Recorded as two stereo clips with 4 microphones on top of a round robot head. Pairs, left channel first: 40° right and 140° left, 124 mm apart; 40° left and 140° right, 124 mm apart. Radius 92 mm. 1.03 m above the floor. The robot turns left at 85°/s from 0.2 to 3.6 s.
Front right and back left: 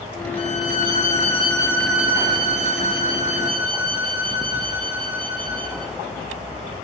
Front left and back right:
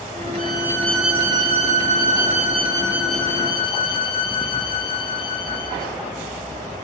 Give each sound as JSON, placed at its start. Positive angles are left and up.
{"t": 0.4, "sound": "a violin", "azimuth_deg": 0, "distance_m": 2.5}